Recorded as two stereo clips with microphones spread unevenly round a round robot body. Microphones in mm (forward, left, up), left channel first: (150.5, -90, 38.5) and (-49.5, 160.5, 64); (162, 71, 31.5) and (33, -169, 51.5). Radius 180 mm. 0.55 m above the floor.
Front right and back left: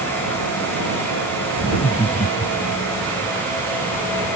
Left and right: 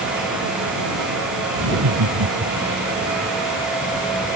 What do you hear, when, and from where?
1.6 s laughter: 130° right; by 2.8 s 120° right